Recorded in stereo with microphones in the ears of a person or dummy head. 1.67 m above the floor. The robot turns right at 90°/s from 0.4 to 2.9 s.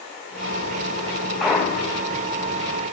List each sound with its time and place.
1.4 s a clunk: 5° right, 1.2 m; by 2.1 s 60° left, 1.2 m